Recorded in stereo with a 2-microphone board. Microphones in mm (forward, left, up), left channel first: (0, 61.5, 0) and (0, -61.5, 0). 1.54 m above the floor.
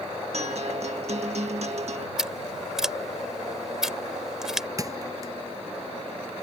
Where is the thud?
30° right (ahead or behind).